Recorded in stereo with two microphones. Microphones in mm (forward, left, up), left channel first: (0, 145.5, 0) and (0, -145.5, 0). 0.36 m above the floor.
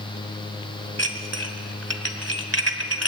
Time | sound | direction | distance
1.0 | dishes clattering | 55° right (ahead or behind) | 1.7 m